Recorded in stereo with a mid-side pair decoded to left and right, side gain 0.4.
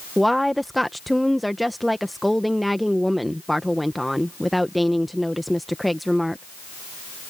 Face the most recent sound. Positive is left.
turn(degrees=0)